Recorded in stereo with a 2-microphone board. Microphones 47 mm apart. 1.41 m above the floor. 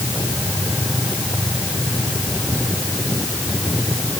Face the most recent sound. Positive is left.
No sound to turn to.